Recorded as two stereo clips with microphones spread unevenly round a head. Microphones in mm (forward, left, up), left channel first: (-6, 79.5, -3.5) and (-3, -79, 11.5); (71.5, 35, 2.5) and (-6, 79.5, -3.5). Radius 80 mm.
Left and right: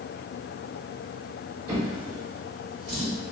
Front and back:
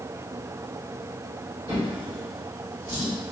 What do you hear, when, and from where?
1.7 s a drawer: 150° right, 1.9 m